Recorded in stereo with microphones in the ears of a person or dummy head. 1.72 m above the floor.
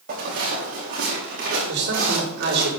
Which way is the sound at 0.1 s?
45° right (ahead or behind).